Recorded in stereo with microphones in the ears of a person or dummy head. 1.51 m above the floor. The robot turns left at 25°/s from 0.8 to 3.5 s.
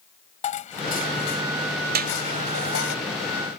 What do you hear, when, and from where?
0.4 s dishes clattering: 145° left; by 3.0 s 90° left
1.9 s a clap: 50° right (ahead or behind); by 2.2 s 45° right (ahead or behind)